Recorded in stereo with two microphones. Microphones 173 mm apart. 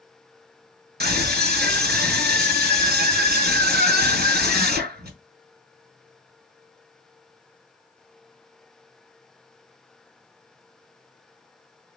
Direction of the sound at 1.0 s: 70° right (ahead or behind).